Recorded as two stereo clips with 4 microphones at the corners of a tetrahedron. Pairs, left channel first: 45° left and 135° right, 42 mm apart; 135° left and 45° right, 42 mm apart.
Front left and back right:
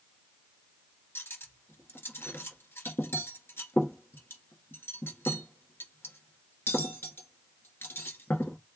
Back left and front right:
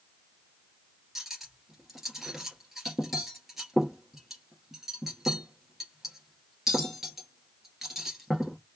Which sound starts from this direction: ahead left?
Cutlery clinking, at 1.1 s.